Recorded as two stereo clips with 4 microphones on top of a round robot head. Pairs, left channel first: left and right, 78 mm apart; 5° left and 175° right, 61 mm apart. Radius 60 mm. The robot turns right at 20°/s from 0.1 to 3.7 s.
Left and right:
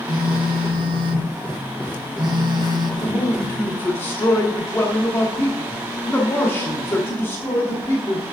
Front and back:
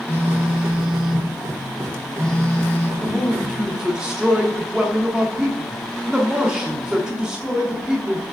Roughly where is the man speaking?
Left.